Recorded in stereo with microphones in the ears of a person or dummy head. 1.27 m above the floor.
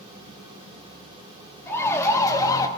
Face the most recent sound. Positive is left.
turn(degrees=20)  # may be behind; listen again after turning